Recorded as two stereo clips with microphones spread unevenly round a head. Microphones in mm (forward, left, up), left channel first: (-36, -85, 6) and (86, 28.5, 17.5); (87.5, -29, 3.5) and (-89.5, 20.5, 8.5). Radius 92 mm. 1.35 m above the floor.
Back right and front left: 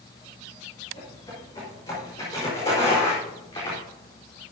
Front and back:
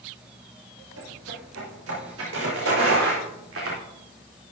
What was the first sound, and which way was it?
Footsteps, 150° left.